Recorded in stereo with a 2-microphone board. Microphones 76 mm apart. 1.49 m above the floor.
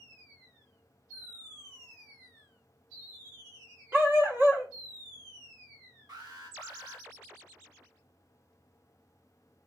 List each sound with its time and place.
3.9 s a dog barking: 30° right (ahead or behind), 1.0 m
6.1 s an alarm: 75° right (ahead or behind), 2.5 m